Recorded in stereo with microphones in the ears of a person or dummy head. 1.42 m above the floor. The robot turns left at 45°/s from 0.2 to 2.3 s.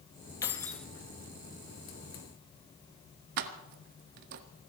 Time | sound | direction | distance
0.4 | keys jangling | 20° left (ahead or behind) | 1.2 m
3.4 | keys jangling | 60° right (ahead or behind) | 1.1 m